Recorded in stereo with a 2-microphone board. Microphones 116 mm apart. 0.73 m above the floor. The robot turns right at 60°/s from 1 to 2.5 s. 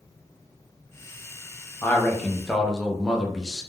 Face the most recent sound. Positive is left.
turn(degrees=0)  # may be behind; listen again after turning